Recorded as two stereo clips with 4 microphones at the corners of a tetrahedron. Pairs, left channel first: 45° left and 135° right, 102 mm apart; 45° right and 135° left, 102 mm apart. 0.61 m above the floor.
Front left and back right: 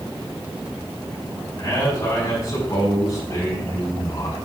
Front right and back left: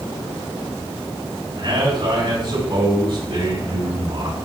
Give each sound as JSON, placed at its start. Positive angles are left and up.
{"t": 1.6, "sound": "a man speaking", "azimuth_deg": 95, "distance_m": 4.5}